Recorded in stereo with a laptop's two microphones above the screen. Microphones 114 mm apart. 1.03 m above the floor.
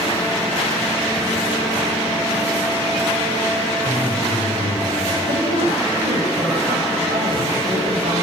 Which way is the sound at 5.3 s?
80° right.